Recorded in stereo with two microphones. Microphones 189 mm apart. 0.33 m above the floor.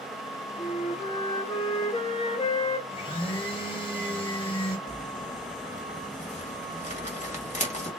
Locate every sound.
0.6 s a flute: 35° left (ahead or behind), 1.9 m
2.9 s a blender: 25° left (ahead or behind), 2 m
4.9 s crumpling: 40° left (ahead or behind), 1.8 m